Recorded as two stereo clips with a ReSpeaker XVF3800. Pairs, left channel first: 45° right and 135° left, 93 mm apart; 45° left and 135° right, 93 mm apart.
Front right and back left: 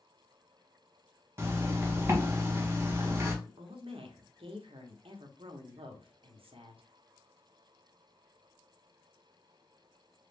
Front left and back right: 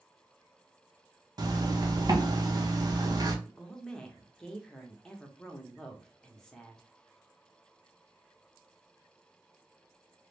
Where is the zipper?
170° right, 0.6 m.